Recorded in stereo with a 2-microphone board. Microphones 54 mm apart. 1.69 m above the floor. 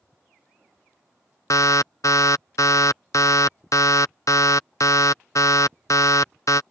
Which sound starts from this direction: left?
An alarm, at 1.5 s.